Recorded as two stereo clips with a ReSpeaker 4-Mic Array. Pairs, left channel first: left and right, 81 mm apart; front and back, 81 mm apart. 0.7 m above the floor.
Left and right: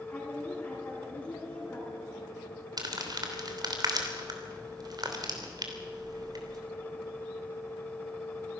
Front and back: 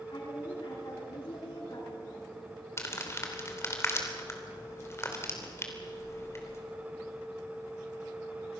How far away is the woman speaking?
About 8 m.